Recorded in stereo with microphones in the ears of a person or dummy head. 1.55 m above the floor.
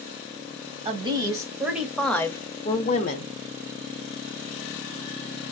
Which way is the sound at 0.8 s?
25° right (ahead or behind).